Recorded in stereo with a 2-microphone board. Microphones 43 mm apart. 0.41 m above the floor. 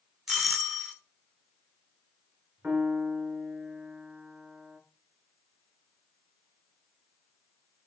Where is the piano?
30° right (ahead or behind), 2.5 m.